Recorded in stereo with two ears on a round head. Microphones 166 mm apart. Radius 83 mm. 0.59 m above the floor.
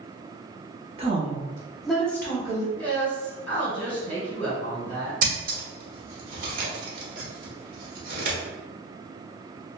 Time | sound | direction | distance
1.0 | a woman speaking | 35° right (ahead or behind) | 0.9 m
2.8 | a woman speaking | 10° left (ahead or behind) | 1.8 m
5.2 | scissors | 50° right (ahead or behind) | 1.3 m